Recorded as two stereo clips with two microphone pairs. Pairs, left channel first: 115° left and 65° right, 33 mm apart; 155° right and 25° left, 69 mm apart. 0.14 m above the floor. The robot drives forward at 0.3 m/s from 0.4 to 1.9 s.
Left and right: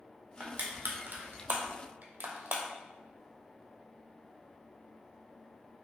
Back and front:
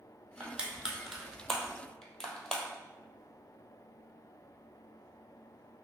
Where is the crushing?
50° right, 1.0 m; by 2.6 s 75° right, 0.8 m.